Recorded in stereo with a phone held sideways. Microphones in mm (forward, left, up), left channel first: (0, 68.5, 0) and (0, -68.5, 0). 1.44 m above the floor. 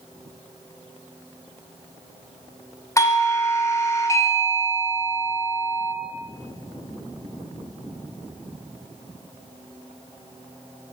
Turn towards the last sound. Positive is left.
turn(degrees=20)  # may be behind; listen again after turning